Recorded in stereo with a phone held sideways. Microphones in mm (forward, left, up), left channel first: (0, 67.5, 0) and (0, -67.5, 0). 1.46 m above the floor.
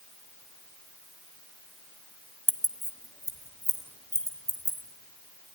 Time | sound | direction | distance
2.5 | keys jangling | 15° left (ahead or behind) | 1.0 m